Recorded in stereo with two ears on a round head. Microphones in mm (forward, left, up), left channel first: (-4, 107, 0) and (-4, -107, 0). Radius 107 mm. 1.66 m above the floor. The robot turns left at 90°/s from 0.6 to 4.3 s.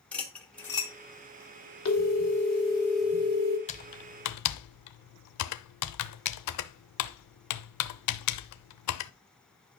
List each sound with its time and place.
0.1 s cutlery clinking: 5° left (ahead or behind), 1.4 m; by 0.9 s 25° left (ahead or behind), 1.4 m
1.9 s a phone ringing: 105° left, 2 m; by 3.6 s 50° right, 2 m
3.7 s typing on a keyboard: 30° left (ahead or behind), 0.5 m; by 9.1 s 80° left, 0.5 m